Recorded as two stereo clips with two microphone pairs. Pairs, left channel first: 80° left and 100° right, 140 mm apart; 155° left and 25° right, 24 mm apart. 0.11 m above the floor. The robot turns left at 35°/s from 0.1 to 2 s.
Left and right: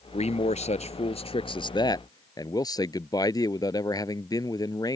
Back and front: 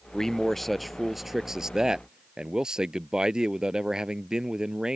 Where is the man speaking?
95° left; by 5.0 s 30° left.